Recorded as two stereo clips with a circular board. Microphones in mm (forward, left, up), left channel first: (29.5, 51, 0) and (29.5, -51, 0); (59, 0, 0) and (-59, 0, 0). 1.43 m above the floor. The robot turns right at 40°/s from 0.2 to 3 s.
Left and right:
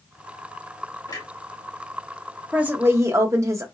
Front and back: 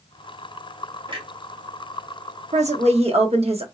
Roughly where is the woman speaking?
Behind.